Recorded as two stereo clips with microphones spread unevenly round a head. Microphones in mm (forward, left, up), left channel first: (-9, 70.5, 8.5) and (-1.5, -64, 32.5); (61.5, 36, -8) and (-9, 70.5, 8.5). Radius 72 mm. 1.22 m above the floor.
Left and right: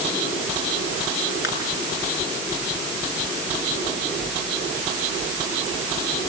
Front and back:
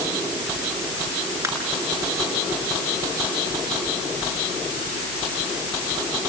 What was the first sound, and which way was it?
Crushing, 105° left.